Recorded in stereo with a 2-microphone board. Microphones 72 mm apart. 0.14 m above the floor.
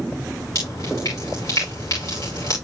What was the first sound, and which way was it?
Dripping, 55° left (ahead or behind).